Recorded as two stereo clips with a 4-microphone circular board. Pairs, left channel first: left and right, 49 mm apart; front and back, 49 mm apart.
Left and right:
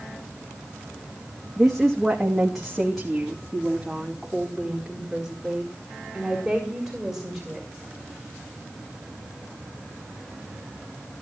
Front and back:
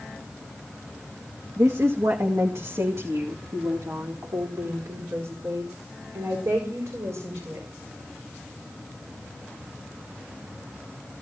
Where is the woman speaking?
Straight behind, 1.9 m.